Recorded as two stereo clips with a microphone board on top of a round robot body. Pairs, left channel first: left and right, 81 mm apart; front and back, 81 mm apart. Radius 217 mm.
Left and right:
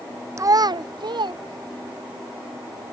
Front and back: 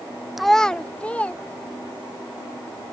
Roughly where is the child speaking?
Right.